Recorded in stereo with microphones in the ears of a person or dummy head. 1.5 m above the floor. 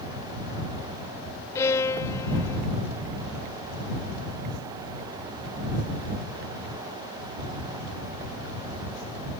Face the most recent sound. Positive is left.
turn(degrees=20)  # may be behind; listen again after turning